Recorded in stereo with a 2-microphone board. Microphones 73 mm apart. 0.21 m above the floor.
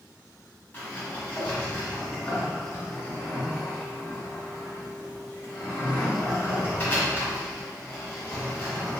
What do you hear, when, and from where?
0.7 s a sliding door: 30° left (ahead or behind), 1.4 m